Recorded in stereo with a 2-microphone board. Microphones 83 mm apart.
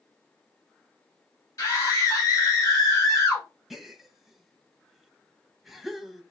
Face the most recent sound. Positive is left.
turn(degrees=0)  # may be behind; listen again after turning